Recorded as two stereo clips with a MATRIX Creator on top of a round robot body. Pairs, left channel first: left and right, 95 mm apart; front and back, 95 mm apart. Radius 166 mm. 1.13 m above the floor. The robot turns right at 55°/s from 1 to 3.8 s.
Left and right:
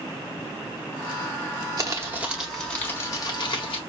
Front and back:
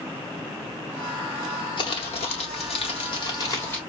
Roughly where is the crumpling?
Ahead right.